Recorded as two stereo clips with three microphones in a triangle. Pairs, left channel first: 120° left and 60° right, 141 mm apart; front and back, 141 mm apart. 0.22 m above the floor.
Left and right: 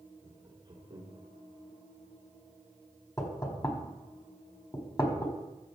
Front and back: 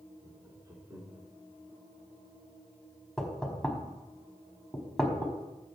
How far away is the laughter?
About 3 m.